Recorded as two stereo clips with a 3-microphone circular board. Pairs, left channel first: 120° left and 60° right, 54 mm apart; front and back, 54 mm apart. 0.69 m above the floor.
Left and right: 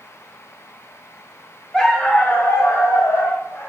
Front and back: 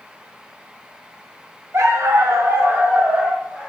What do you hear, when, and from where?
1.7 s a dog barking: 160° right, 0.8 m; by 3.7 s 105° left, 1.2 m